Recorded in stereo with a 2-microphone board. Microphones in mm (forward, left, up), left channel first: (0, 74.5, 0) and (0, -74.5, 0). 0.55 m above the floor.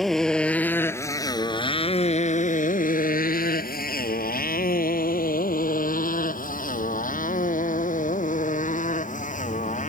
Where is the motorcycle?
Centre (ahead or behind); by 9.9 s 55° left (ahead or behind).